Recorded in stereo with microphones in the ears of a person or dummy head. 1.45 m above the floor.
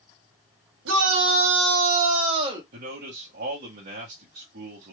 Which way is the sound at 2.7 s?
45° right (ahead or behind).